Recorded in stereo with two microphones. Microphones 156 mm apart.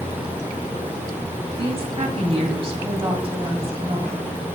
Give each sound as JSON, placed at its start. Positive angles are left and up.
{"t": 1.6, "sound": "a woman speaking", "side_deg": -40, "distance_m": 2.0}